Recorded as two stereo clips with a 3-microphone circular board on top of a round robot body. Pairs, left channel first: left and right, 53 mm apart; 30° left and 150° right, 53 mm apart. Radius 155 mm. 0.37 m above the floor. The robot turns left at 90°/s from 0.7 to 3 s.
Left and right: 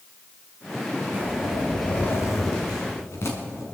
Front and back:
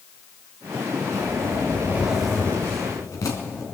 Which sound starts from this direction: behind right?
A zipper, at 1.1 s.